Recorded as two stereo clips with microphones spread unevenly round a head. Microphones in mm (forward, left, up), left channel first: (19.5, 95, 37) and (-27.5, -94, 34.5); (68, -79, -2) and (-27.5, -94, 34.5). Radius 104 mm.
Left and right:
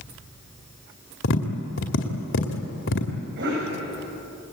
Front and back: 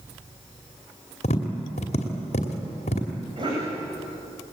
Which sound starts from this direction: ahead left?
Tapping, at 1.2 s.